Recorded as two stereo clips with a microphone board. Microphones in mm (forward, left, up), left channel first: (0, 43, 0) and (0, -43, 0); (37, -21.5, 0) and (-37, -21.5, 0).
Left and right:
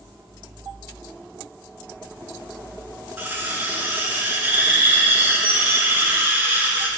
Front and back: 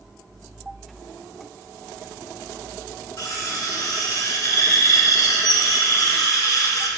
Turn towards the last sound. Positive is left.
turn(degrees=-25)